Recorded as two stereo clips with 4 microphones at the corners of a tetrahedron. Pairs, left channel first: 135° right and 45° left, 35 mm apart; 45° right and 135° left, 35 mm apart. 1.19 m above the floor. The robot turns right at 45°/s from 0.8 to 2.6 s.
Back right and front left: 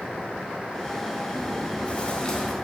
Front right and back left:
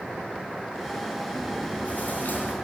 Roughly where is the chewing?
Right.